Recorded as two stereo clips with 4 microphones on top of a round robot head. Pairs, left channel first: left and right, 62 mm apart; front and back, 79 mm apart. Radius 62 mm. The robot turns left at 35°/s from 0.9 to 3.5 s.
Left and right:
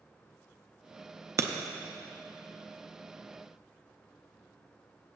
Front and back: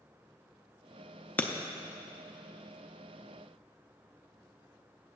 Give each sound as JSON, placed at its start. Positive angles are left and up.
{"t": 1.4, "sound": "breaking glass", "azimuth_deg": -65, "distance_m": 0.6}